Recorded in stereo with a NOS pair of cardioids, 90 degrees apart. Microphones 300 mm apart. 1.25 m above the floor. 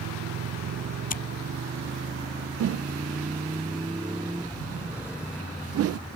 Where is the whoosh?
50° right.